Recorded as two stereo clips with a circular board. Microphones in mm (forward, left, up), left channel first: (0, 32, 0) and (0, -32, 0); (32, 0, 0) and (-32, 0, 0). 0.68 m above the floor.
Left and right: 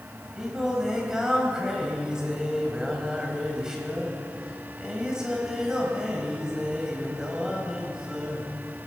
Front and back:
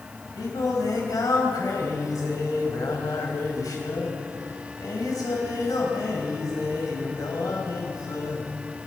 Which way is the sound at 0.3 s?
10° right.